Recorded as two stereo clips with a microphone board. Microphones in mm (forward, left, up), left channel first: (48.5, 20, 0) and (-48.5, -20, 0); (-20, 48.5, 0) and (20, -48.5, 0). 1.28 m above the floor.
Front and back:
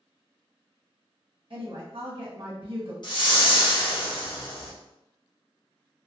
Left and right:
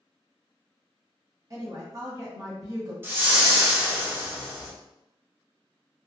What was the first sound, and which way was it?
A woman speaking, 125° right.